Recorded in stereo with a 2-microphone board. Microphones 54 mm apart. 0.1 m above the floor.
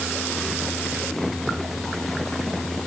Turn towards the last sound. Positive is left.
No sound to turn to.